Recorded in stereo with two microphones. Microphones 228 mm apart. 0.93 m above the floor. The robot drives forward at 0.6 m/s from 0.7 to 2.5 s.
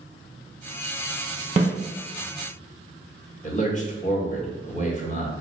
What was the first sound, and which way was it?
A snare drum, 25° right (ahead or behind).